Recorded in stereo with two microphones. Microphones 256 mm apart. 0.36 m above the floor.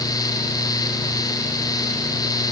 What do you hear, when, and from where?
Only background noise.